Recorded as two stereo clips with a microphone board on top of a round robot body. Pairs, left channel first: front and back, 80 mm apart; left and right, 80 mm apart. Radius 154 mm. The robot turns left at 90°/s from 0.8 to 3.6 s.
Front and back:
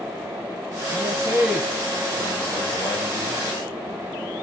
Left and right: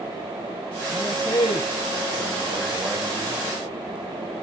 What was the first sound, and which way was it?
A man speaking, 150° left.